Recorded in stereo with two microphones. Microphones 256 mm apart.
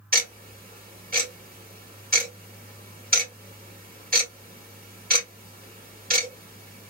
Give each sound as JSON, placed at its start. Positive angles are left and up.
{"t": 0.1, "sound": "ticking", "side_deg": -35, "distance_m": 2.0}